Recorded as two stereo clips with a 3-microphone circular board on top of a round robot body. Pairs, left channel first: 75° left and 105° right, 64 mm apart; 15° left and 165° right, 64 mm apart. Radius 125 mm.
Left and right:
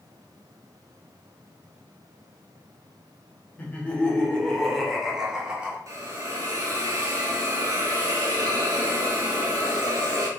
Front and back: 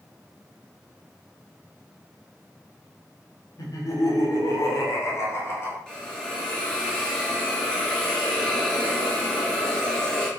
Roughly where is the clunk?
No clunk in this recording.